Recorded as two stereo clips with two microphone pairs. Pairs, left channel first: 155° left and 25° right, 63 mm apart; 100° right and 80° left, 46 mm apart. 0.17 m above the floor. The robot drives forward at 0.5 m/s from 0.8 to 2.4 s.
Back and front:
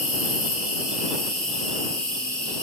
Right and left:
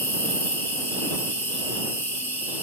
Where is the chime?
I don't hear a chime.